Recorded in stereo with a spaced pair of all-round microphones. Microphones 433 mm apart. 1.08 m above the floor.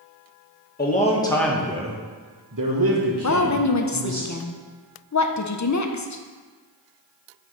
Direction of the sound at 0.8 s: 20° left (ahead or behind).